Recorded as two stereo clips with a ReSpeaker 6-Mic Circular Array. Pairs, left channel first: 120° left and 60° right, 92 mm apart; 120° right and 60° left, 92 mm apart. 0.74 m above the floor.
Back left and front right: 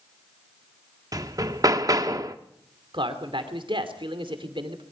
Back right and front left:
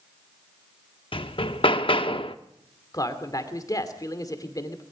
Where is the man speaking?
75° right, 2.5 m.